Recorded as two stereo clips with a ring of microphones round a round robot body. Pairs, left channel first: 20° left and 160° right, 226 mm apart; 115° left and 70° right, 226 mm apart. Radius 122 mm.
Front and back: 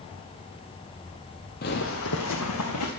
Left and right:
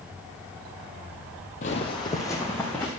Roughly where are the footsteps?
Ahead left.